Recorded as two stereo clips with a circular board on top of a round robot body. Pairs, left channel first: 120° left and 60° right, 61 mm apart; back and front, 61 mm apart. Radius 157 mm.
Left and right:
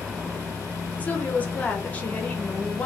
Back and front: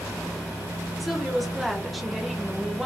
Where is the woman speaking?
90° left, 1.0 m.